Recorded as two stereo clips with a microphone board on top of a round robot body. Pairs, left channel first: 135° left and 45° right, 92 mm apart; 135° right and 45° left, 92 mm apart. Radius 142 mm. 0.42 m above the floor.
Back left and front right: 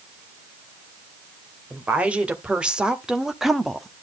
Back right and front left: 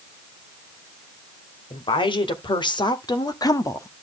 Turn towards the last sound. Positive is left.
turn(degrees=-150)